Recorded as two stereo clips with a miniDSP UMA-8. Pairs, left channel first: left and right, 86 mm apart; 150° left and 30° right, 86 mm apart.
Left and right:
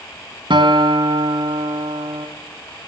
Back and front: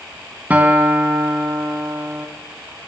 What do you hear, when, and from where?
0.5 s a guitar: 100° right, 2.5 m